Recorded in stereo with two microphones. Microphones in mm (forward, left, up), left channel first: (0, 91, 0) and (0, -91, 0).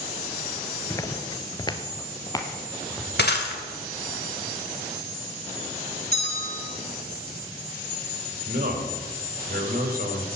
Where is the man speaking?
65° right (ahead or behind), 3 m.